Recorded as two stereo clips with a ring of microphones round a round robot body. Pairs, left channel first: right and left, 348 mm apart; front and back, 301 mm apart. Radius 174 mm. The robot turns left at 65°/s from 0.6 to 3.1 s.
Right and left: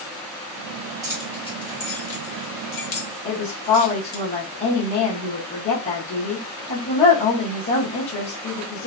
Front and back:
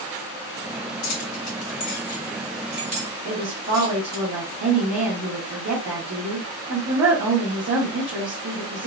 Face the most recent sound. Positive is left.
turn(degrees=-135)